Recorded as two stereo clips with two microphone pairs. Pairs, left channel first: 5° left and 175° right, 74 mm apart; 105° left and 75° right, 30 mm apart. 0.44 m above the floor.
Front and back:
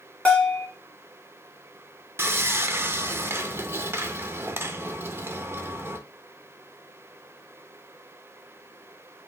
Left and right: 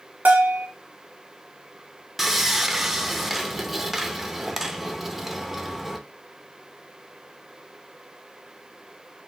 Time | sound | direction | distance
0.2 | a bell | 70° right | 1.5 m
2.2 | sawing | 150° right | 0.6 m